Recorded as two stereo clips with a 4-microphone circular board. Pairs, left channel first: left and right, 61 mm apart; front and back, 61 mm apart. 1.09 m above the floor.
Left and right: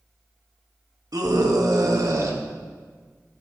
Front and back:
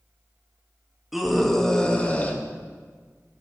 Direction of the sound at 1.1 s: 95° right.